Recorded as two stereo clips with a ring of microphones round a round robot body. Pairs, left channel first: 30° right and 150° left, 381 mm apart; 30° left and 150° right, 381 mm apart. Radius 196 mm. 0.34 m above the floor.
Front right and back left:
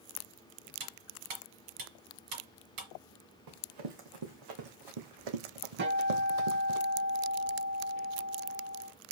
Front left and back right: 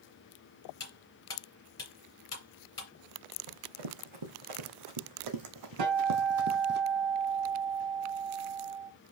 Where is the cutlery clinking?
110° left, 3.5 m.